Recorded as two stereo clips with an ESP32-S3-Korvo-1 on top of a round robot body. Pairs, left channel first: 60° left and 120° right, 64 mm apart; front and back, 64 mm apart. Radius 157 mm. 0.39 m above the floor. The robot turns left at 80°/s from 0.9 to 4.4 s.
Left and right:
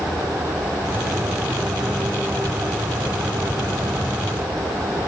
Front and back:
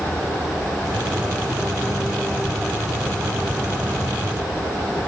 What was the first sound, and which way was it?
Only background noise.